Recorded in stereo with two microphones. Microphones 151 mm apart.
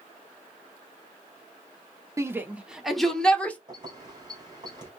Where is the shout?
20° right (ahead or behind), 0.9 m; by 3.6 s 10° left (ahead or behind), 1.4 m.